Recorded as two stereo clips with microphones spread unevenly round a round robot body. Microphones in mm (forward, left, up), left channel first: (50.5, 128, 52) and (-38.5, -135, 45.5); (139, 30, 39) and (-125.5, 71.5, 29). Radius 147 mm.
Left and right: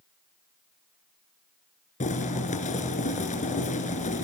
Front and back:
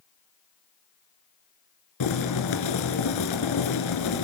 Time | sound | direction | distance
2.0 | boiling | 5° left | 3 m